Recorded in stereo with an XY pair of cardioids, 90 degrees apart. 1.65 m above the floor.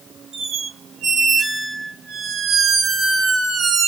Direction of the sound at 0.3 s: 55° right.